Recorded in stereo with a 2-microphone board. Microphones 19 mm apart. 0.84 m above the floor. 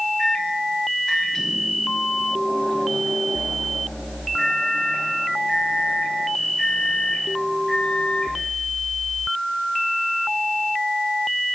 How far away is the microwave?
About 4 m.